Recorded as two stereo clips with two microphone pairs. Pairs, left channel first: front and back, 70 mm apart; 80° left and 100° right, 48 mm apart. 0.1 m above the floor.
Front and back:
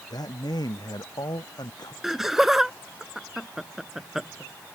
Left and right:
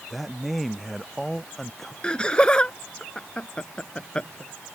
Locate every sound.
0.1 s a man speaking: 15° right; by 1.9 s 5° right
2.0 s laughter: 105° left